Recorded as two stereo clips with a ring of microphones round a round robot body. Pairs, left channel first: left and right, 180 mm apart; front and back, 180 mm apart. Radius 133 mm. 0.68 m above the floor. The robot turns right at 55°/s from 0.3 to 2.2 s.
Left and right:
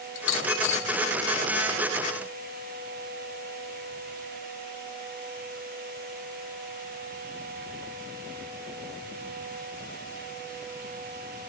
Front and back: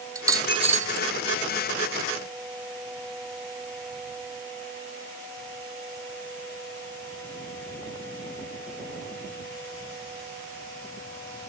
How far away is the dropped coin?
About 1.5 m.